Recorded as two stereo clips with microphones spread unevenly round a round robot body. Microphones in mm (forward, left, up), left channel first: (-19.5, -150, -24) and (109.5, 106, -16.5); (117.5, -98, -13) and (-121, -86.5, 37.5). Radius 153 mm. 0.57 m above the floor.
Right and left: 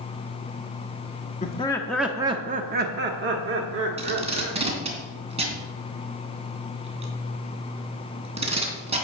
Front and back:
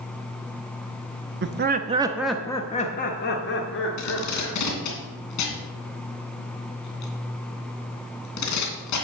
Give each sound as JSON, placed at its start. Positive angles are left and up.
{"t": 1.4, "sound": "laughter", "azimuth_deg": -165, "distance_m": 0.9}
{"t": 4.0, "sound": "tape being pulled", "azimuth_deg": -5, "distance_m": 2.5}